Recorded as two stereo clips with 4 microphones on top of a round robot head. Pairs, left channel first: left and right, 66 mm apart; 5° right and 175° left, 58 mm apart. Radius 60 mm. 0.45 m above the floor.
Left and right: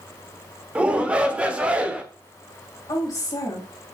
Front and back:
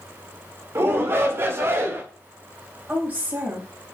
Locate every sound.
0.8 s a shout: 155° right, 1.4 m
2.9 s a woman speaking: 120° left, 3.5 m